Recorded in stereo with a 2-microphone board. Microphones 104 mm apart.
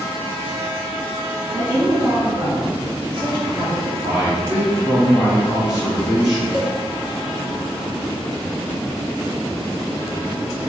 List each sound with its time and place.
1.5 s a woman speaking: 30° right (ahead or behind), 1.3 m; by 3.9 s 60° right (ahead or behind), 2.5 m
4.0 s a man speaking: 10° right (ahead or behind), 1.3 m
6.5 s a cowbell: 35° right (ahead or behind), 1.3 m